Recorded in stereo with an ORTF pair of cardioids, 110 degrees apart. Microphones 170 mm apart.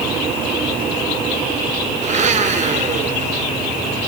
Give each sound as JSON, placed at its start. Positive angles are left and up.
{"t": 2.0, "sound": "a blender", "azimuth_deg": -45, "distance_m": 3.5}